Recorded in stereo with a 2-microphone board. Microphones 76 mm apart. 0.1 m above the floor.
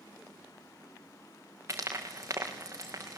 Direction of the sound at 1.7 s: 40° right (ahead or behind).